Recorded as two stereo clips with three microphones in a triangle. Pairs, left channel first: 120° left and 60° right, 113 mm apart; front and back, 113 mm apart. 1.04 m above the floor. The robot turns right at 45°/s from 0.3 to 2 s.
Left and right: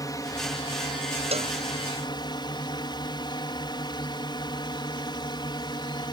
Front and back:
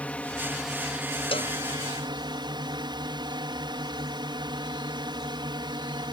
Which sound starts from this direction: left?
A drone, at 0.0 s.